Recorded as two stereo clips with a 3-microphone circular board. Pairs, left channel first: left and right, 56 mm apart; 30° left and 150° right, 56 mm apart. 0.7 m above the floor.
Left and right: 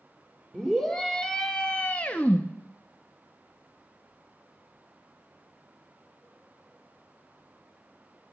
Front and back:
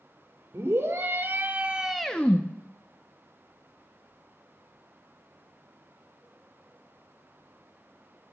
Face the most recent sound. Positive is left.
turn(degrees=45)